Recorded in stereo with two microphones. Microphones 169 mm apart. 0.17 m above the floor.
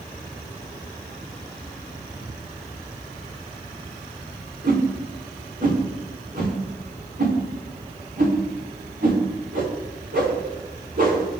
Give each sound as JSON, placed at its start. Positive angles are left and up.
{"t": 4.6, "sound": "a whoosh", "side_deg": -55, "distance_m": 3.0}